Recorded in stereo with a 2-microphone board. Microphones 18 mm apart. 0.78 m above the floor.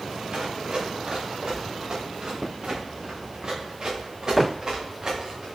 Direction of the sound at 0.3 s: 55° right (ahead or behind).